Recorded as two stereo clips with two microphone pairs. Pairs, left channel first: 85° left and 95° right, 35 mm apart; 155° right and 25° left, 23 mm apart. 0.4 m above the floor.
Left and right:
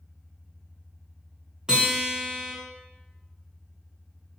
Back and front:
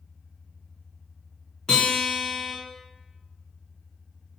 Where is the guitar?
140° right, 1.0 m.